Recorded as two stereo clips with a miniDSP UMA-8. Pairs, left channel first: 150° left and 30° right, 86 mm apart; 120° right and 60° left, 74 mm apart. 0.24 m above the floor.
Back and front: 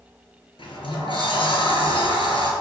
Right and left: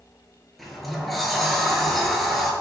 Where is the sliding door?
150° left, 0.8 m.